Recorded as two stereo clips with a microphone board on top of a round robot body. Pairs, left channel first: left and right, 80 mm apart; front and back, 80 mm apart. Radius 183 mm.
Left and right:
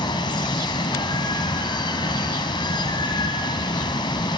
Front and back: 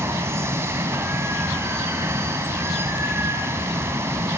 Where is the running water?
120° left, 1.2 m.